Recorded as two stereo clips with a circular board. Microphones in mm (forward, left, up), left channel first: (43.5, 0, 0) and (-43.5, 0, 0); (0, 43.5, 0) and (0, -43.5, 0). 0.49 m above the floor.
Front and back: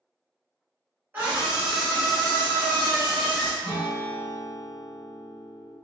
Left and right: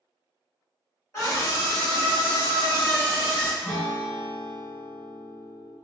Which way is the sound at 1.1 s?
120° left.